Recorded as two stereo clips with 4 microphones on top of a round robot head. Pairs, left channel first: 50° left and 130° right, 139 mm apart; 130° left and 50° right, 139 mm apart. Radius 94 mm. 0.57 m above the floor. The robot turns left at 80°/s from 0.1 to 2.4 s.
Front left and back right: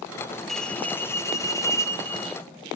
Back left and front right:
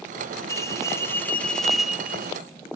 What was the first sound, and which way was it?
A bell, 140° left.